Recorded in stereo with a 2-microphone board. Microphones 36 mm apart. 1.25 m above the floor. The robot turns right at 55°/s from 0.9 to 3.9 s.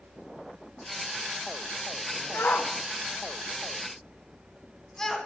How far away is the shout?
About 1.0 m.